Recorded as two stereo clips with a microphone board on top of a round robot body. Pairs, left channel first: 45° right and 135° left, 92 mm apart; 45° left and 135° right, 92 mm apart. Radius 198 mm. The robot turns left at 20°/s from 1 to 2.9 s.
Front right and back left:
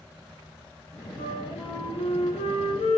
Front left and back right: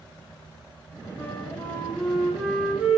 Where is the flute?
25° right, 1.0 m; by 3.0 s 60° right, 1.0 m.